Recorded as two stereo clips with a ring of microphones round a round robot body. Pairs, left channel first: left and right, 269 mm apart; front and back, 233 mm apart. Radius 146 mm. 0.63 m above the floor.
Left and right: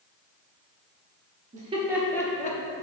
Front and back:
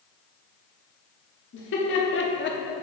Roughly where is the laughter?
Ahead right.